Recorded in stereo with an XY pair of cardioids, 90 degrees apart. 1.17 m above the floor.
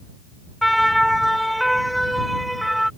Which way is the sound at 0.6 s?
Straight ahead.